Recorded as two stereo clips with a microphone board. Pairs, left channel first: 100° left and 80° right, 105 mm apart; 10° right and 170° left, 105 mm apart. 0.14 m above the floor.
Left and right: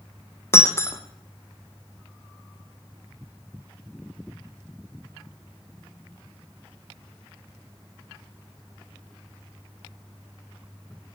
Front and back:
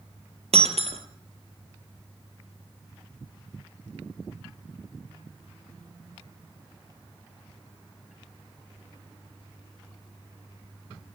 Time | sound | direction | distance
0.5 | breaking glass | 165° left | 1.8 m